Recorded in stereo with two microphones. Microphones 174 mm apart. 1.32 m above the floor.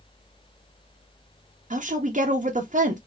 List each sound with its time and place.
1.7 s a woman speaking: 45° right (ahead or behind), 0.7 m